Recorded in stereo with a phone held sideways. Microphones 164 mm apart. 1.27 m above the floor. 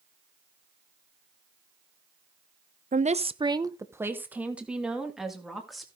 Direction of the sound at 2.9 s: 55° right (ahead or behind).